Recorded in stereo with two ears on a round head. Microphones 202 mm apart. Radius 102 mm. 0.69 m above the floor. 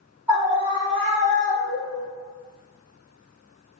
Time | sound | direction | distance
0.3 | a scream | 10° right (ahead or behind) | 1.3 m